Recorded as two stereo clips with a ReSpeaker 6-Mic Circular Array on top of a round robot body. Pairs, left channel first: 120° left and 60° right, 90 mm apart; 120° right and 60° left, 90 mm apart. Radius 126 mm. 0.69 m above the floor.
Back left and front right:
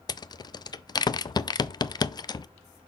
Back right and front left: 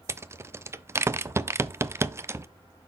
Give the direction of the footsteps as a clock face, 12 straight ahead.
No footsteps in this recording.